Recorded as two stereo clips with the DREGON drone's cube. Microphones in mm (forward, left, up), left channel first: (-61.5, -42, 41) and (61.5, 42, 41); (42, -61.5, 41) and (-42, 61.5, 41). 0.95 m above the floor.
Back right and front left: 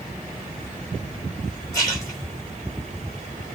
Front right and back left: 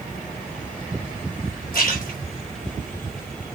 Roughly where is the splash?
Right.